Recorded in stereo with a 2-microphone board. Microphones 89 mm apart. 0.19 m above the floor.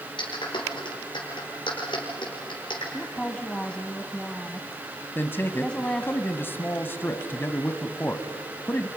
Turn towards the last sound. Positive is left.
turn(degrees=25)  # may be behind; listen again after turning